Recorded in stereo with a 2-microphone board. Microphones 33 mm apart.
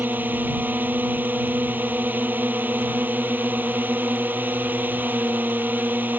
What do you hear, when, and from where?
0.0 s a drone: 70° right (ahead or behind)